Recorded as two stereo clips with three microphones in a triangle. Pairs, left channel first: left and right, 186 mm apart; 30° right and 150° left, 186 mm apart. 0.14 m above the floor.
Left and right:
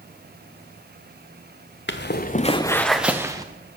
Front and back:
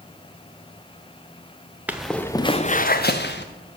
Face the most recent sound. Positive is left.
turn(degrees=-20)